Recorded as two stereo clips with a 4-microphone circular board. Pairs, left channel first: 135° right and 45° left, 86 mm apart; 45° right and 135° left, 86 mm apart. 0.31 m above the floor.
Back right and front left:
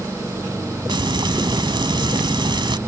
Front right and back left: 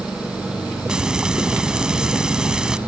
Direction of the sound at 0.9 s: 55° left.